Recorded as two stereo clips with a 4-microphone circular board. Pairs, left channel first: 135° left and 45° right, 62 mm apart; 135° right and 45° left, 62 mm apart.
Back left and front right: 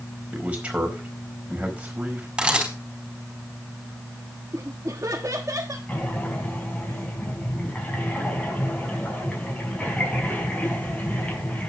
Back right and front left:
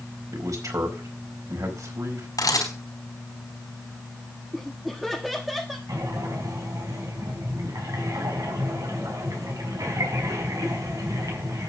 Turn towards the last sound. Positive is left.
turn(degrees=70)